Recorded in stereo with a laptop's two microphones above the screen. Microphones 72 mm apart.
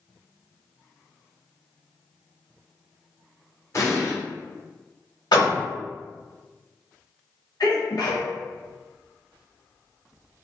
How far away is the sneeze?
About 1.1 m.